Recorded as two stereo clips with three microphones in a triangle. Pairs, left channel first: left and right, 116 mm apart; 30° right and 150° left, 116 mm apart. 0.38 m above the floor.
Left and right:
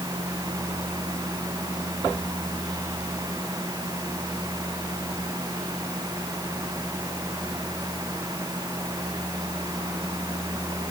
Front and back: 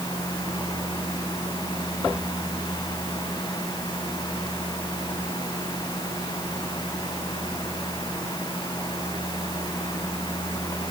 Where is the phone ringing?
No phone ringing in this recording.